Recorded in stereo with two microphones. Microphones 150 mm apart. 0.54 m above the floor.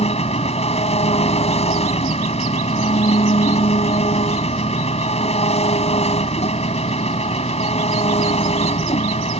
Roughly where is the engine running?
Left.